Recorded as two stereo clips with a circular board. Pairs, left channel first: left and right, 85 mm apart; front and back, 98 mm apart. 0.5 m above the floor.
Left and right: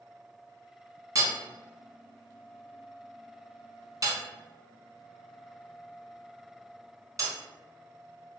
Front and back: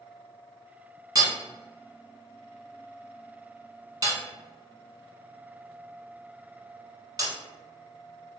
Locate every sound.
1.1 s hammering: 135° right, 1.0 m